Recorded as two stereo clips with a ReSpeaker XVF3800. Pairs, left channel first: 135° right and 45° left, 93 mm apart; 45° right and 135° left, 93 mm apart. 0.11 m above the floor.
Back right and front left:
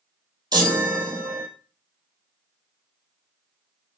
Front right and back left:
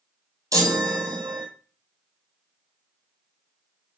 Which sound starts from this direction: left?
A chime, at 0.5 s.